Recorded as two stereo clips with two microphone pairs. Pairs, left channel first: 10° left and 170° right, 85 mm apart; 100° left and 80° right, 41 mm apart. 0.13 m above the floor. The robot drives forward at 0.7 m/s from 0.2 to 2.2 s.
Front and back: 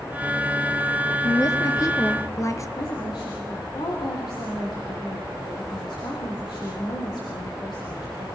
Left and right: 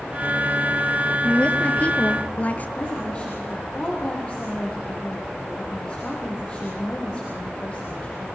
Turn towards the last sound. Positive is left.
turn(degrees=35)